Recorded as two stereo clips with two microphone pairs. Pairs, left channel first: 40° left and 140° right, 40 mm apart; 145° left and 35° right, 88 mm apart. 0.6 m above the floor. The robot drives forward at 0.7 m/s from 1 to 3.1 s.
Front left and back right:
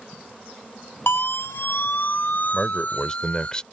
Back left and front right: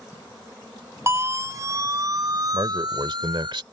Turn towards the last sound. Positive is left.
turn(degrees=-25)